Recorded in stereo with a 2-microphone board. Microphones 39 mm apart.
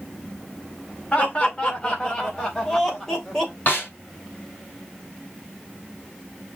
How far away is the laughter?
About 1.8 m.